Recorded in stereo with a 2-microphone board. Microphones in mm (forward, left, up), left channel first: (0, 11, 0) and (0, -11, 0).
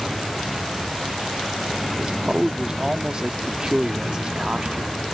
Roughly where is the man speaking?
Right.